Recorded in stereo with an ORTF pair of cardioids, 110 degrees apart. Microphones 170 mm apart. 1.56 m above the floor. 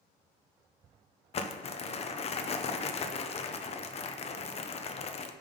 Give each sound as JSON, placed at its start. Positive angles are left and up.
{"t": 1.3, "sound": "crumpling", "azimuth_deg": 35, "distance_m": 0.9}